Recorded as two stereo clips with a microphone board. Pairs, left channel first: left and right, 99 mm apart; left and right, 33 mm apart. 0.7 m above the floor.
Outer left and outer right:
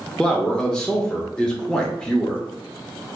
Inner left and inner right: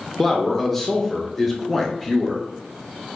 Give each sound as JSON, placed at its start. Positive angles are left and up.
{"t": 0.2, "sound": "a man speaking", "side_deg": 10, "distance_m": 0.6}